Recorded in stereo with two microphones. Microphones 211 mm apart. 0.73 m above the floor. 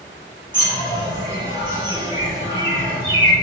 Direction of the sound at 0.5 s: 20° right (ahead or behind).